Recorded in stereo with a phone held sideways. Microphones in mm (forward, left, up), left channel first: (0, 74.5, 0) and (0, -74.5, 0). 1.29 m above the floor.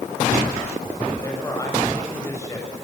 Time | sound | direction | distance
1.2 | a man speaking | 20° left (ahead or behind) | 8 m